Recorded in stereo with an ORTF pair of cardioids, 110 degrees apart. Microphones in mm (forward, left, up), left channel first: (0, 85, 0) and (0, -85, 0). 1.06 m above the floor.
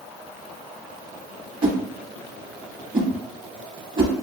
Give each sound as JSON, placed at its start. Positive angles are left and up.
{"t": 1.6, "sound": "a whoosh", "azimuth_deg": -30, "distance_m": 0.9}